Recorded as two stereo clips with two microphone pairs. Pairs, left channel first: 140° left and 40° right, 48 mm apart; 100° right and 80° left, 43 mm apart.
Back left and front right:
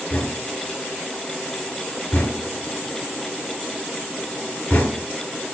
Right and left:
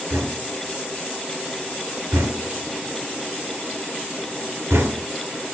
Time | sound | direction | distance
0.1 | knocking | 85° left | 3.5 m